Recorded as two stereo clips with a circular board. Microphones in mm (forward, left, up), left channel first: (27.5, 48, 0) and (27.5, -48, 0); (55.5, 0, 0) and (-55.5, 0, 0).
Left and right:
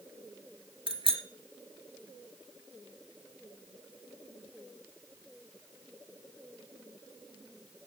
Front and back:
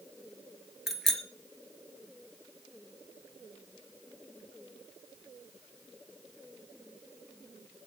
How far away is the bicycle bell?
About 2.5 m.